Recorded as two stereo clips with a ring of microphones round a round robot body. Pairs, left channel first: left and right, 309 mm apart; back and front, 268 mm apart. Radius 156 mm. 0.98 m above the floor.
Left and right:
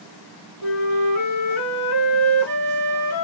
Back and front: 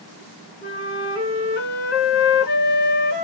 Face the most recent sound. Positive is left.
turn(degrees=135)